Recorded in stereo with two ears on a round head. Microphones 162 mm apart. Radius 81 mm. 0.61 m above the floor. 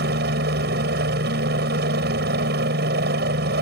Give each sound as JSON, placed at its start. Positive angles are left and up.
{"t": 0.0, "sound": "a helicopter", "side_deg": -60}